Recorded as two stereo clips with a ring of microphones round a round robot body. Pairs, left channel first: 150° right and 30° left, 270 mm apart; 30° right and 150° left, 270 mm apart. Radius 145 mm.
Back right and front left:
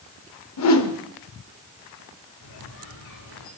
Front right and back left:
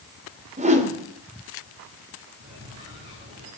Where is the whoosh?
145° right, 1.9 m.